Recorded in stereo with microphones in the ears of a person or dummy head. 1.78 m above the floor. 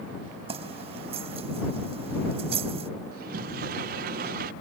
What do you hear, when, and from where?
0.5 s keys jangling: 35° right (ahead or behind)
3.1 s a sliding door: 55° right (ahead or behind)